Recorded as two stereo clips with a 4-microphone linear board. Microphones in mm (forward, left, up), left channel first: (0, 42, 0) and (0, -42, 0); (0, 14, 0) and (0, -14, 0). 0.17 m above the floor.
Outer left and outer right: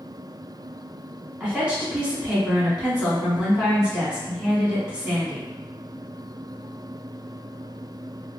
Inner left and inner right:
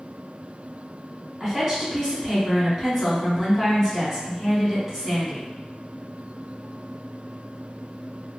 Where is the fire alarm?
I don't hear a fire alarm.